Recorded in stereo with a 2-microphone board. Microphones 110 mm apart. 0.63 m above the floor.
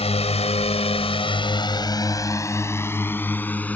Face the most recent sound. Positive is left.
turn(degrees=15)  # may be behind; listen again after turning